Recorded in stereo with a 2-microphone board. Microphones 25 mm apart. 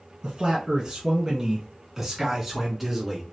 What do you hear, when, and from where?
0.2 s a man speaking: 30° right (ahead or behind), 1.5 m; by 3.2 s 5° right (ahead or behind), 1.6 m